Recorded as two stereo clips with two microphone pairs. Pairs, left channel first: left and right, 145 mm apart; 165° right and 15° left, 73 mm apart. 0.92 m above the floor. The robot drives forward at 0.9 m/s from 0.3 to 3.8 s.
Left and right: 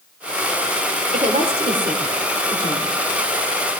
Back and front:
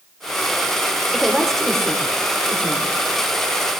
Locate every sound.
1.1 s a woman speaking: 75° right, 4 m; by 2.9 s 100° right, 3.5 m